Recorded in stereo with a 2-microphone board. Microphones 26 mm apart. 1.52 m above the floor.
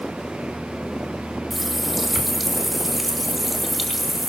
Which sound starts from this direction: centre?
A running tap, at 1.5 s.